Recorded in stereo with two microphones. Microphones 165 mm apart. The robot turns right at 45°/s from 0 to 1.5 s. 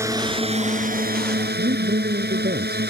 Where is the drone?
165° right; by 2.9 s 95° right.